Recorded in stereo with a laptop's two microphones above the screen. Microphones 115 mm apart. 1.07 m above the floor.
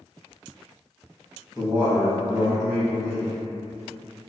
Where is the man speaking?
15° right (ahead or behind), 1.0 m.